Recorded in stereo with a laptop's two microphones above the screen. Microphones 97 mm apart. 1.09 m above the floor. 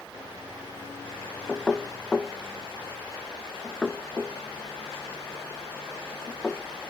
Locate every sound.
1.5 s knocking: 10° left (ahead or behind), 0.5 m